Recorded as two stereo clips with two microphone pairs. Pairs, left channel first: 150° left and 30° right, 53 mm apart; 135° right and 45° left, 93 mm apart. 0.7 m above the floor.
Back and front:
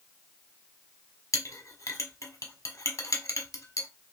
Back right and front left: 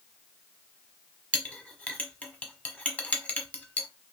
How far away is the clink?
About 1.1 m.